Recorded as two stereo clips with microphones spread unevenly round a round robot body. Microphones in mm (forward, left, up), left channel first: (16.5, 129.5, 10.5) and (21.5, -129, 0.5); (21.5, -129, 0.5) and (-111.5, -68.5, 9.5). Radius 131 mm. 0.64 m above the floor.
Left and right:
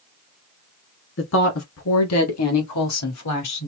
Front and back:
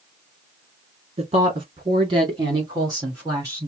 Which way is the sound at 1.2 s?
110° left.